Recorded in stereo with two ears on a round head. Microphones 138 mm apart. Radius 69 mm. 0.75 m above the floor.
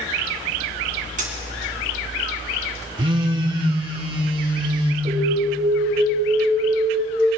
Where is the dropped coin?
55° right (ahead or behind), 2.5 m.